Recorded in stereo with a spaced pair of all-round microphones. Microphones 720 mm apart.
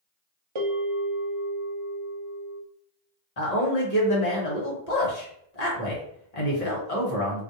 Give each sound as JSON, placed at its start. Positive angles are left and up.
{"t": 0.6, "sound": "a bell", "side_deg": -45, "distance_m": 0.6}
{"t": 3.4, "sound": "a man speaking", "side_deg": 55, "distance_m": 1.2}